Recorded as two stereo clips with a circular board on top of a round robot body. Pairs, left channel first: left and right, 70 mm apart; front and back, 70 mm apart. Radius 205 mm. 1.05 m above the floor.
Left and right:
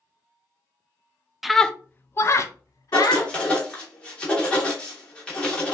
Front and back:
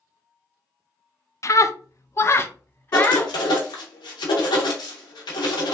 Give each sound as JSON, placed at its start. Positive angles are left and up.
{"t": 1.4, "sound": "a scream", "azimuth_deg": -5, "distance_m": 0.6}
{"t": 2.9, "sound": "writing", "azimuth_deg": 15, "distance_m": 0.6}